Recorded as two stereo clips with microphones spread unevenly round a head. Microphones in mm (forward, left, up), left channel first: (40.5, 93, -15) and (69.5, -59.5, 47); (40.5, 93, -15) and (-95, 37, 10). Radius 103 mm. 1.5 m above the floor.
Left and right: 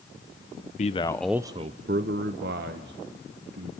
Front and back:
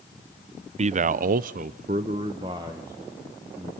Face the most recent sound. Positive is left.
turn(degrees=-80)